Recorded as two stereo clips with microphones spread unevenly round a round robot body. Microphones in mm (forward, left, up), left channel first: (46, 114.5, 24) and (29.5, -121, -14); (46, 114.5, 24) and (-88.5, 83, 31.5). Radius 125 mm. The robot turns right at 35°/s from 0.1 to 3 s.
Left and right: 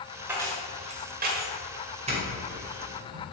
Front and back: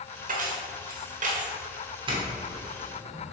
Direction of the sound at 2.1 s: 130° right.